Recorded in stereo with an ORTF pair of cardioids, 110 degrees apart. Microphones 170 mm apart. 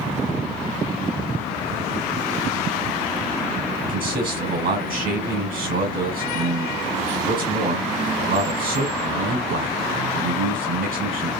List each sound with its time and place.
3.9 s a man speaking: 60° right, 1.5 m